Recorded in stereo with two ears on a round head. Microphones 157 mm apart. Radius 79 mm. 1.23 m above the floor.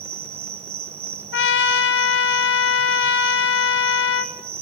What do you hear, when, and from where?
0.0 s an insect: 35° right (ahead or behind), 1.0 m
1.3 s a trumpet: 75° left (ahead or behind), 1.7 m